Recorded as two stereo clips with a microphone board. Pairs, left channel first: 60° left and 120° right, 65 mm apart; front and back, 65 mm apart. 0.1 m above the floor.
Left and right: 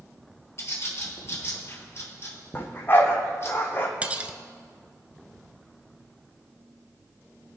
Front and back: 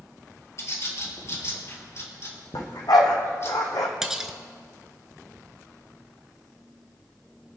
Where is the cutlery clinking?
110° right, 0.8 m.